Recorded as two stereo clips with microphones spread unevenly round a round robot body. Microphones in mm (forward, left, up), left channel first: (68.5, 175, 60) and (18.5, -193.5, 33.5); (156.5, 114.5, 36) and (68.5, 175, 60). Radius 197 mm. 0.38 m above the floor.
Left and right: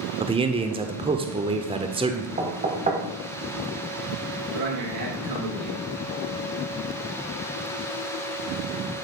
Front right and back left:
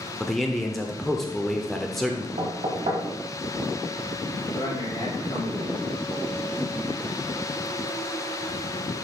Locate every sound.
0.2 s a man speaking: 80° right, 0.9 m
2.4 s knocking: 165° right, 1.5 m
4.5 s a man speaking: 80° right, 5.5 m